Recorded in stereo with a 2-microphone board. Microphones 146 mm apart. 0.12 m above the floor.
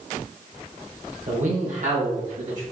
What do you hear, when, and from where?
1.3 s a man speaking: 55° right (ahead or behind), 3 m